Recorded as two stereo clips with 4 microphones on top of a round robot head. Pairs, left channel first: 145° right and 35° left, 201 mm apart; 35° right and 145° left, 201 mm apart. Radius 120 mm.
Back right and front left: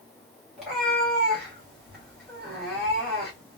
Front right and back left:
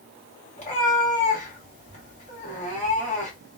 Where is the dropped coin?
No dropped coin in this recording.